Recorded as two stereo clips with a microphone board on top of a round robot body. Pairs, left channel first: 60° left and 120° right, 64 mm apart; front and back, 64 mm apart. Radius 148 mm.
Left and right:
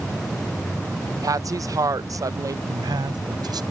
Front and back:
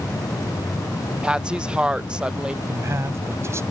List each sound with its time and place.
1.2 s a woman speaking: 105° right
2.7 s a man speaking: 130° right